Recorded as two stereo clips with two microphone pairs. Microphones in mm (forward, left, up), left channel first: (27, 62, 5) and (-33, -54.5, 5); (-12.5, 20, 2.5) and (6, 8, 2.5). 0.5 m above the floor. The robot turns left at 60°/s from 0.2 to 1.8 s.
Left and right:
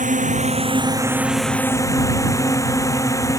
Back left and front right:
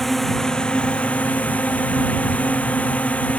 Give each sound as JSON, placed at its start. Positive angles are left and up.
{"t": 0.0, "sound": "a drone", "azimuth_deg": -135}